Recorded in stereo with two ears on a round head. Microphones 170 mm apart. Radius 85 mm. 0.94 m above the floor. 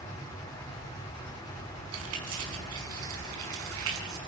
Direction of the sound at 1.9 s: 85° right.